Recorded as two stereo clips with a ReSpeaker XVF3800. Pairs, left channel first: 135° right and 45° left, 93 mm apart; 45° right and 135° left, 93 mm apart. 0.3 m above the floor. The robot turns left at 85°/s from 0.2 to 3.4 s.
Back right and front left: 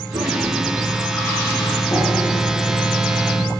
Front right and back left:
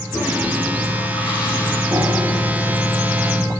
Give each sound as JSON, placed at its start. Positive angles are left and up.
{"t": 0.1, "sound": "a toilet flushing", "azimuth_deg": 20, "distance_m": 4.0}
{"t": 1.9, "sound": "breathing", "azimuth_deg": -175, "distance_m": 7.0}